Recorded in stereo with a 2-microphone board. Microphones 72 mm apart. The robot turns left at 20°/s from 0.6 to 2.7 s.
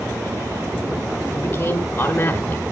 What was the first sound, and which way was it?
A man speaking, 35° left (ahead or behind).